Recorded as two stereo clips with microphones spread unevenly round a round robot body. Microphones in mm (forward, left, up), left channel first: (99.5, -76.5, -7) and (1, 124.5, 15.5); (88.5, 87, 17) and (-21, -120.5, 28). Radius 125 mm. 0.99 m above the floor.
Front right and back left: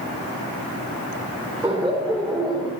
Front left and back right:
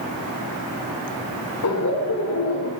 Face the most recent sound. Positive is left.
turn(degrees=25)